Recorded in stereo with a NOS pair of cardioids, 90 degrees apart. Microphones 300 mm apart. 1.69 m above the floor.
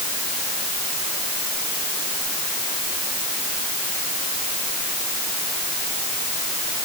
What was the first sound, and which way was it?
Only background noise.